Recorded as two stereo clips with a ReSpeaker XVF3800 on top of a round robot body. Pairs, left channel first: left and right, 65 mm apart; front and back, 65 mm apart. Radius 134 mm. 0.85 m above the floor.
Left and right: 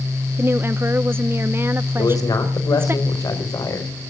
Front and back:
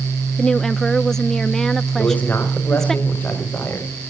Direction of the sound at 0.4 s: 80° right.